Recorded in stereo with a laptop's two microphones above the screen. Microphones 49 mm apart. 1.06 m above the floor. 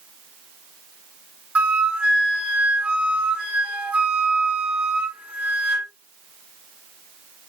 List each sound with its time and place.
1.6 s a flute: 25° right (ahead or behind), 1.4 m